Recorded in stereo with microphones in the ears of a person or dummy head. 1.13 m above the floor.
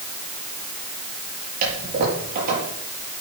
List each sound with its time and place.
1.6 s a toilet flushing: 50° right (ahead or behind), 7.5 m